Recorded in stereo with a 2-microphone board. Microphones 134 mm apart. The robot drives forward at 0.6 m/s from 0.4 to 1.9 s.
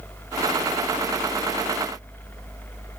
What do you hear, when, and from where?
Only background noise.